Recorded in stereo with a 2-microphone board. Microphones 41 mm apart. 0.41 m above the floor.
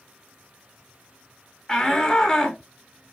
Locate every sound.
1.7 s a shout: 20° left (ahead or behind), 0.9 m